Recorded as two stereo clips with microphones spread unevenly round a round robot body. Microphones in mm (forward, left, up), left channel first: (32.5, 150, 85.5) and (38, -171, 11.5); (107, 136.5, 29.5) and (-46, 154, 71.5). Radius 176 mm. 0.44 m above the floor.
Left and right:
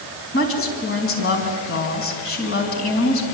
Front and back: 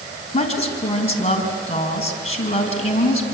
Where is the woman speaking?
40° left, 5 m.